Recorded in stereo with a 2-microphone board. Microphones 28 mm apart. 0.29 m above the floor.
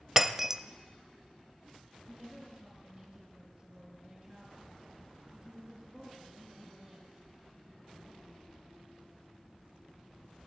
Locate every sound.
0.2 s breaking glass: 15° right (ahead or behind), 0.6 m
2.1 s a woman speaking: 10° right (ahead or behind), 9 m